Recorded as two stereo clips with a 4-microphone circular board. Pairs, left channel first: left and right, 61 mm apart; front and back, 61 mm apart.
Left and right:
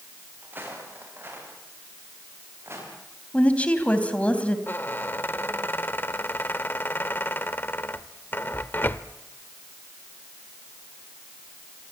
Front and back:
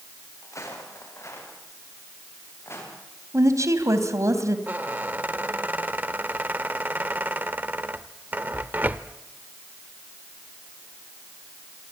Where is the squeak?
130° left, 0.9 m.